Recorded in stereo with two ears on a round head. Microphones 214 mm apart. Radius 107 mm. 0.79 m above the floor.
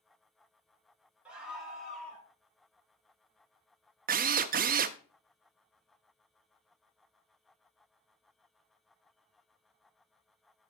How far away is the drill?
About 0.6 m.